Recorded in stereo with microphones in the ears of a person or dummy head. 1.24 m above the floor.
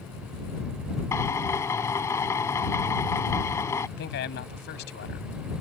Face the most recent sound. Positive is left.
turn(degrees=60)  # may be behind; listen again after turning